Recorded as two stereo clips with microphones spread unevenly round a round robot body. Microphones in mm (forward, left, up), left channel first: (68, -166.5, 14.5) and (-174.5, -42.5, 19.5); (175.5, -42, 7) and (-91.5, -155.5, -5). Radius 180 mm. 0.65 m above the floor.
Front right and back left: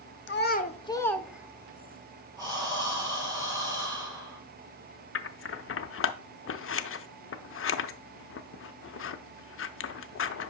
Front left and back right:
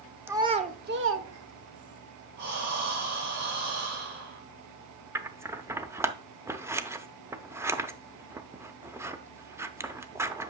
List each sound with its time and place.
0.3 s a child speaking: 75° right, 1.1 m; by 2.0 s 140° right, 1.5 m
2.4 s breathing: 130° right, 5 m
5.2 s scissors: 75° right, 0.7 m